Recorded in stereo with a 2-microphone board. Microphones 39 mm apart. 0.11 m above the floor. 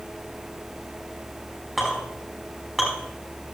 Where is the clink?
5° left (ahead or behind), 5.5 m.